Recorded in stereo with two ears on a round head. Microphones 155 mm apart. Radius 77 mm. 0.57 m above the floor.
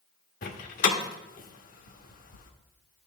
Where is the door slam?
50° left (ahead or behind), 1.1 m.